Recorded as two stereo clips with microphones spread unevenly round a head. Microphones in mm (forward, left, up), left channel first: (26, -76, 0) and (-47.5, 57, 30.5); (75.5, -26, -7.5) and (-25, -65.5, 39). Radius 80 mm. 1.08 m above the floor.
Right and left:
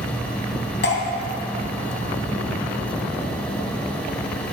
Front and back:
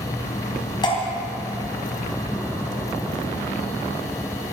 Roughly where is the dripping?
Ahead right.